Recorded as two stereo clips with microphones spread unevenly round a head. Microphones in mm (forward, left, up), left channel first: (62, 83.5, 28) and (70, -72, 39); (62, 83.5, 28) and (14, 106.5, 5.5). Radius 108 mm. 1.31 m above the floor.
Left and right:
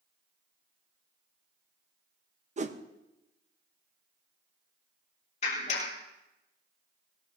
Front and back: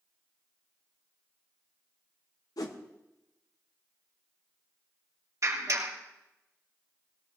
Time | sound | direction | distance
2.6 | a whoosh | 45° right | 1.0 m
5.4 | a clap | 150° left | 4 m